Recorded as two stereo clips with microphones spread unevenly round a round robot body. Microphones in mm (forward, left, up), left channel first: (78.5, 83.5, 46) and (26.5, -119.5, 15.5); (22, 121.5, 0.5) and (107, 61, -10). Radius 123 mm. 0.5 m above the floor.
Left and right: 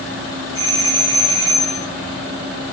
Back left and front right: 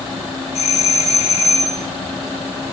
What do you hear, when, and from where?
0.6 s a doorbell: 160° left, 9.5 m